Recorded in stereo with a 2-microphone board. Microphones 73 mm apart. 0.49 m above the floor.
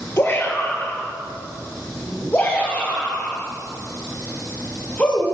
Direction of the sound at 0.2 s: 30° left (ahead or behind).